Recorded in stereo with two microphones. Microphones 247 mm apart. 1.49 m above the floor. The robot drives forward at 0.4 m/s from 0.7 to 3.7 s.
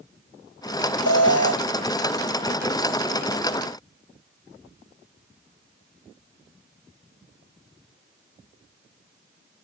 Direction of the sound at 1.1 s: 75° left (ahead or behind).